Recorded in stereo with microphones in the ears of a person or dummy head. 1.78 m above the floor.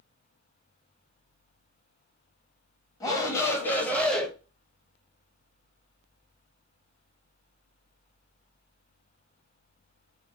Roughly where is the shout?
Centre.